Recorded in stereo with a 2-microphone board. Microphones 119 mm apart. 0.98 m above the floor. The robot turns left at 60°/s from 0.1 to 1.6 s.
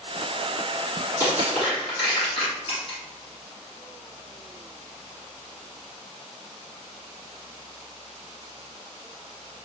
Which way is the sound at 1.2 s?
35° left (ahead or behind).